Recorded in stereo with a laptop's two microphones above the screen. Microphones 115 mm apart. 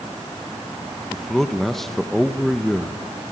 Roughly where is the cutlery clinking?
I don't hear cutlery clinking.